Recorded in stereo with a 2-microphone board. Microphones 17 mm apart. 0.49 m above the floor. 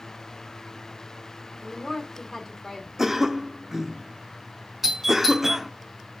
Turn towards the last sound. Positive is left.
turn(degrees=-15)  # may be behind; listen again after turning